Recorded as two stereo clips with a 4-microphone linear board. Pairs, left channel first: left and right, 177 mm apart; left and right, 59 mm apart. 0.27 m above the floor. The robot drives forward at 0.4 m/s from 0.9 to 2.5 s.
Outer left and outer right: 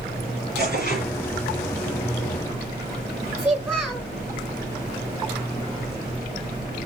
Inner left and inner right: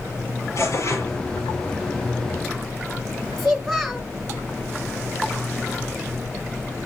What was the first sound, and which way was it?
Tearing paper, 60° left (ahead or behind).